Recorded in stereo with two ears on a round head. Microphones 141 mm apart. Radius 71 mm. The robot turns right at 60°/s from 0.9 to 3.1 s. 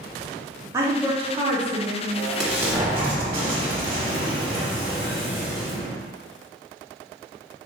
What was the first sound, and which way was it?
A woman speaking, 160° right.